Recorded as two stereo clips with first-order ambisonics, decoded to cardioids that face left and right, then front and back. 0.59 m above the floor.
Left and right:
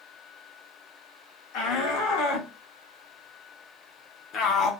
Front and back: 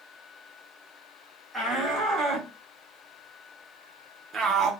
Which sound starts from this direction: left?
A shout, at 1.5 s.